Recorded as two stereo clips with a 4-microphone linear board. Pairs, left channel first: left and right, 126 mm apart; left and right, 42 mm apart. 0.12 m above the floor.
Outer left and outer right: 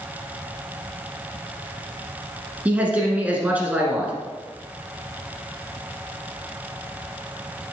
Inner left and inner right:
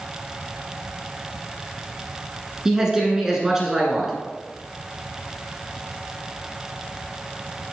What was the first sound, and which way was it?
A man speaking, 10° right (ahead or behind).